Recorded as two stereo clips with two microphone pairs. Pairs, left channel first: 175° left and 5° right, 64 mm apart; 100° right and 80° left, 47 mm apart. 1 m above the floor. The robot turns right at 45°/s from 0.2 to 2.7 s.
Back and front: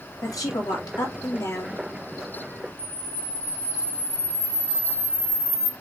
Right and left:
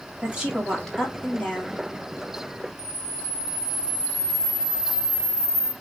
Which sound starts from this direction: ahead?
A camera shutter, at 2.8 s.